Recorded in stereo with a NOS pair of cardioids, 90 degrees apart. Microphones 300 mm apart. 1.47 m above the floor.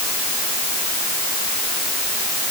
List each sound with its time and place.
Only background noise.